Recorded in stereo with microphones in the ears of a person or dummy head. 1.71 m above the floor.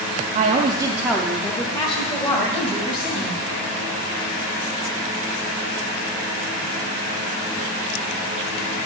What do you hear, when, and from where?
0.3 s a woman speaking: 50° right (ahead or behind), 0.6 m; by 3.4 s 35° left (ahead or behind), 2 m